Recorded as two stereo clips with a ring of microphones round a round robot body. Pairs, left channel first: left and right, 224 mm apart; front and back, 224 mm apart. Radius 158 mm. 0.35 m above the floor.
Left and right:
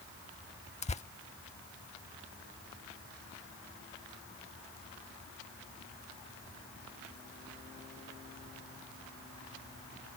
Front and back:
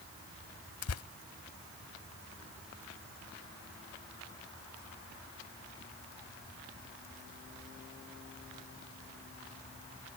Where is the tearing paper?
25° left.